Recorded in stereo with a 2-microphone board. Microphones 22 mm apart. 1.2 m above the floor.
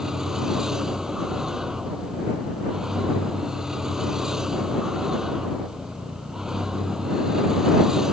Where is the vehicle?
20° right (ahead or behind).